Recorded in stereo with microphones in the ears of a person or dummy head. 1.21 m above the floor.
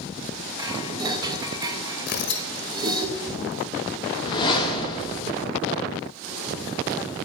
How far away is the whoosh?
About 1.1 m.